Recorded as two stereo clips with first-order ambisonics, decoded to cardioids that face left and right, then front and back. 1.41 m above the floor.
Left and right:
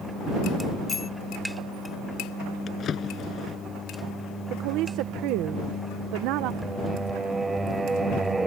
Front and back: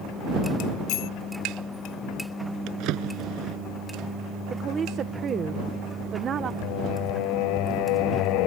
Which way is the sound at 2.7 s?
150° left.